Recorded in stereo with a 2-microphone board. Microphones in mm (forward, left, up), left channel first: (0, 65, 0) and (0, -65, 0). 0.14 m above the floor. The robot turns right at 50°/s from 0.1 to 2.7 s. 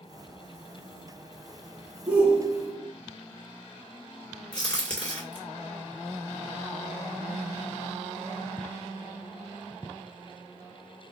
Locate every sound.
2.1 s a shout: 10° right (ahead or behind), 1.4 m; by 2.9 s 25° right (ahead or behind), 1.4 m
4.5 s a crack: 10° left (ahead or behind), 2 m